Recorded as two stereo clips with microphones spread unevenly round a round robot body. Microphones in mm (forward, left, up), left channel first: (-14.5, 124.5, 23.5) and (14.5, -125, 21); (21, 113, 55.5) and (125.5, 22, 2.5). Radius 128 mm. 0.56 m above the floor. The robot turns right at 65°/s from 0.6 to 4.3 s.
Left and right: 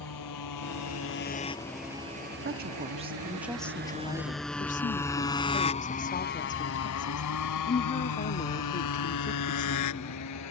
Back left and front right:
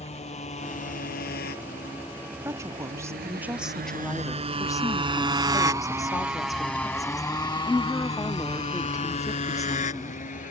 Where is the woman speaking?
65° right; by 10.2 s 55° left.